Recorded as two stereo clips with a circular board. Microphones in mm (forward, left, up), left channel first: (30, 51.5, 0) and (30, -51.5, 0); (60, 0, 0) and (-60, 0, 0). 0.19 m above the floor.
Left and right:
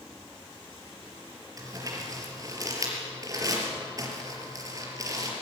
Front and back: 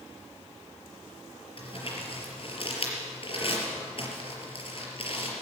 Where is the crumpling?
35° right, 5 m.